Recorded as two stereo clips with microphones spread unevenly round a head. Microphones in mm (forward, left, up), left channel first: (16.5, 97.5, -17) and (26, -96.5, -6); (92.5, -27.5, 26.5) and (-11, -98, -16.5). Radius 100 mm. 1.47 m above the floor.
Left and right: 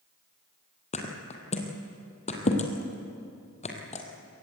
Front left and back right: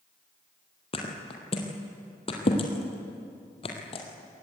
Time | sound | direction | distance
0.9 | a thud | 40° left | 2.5 m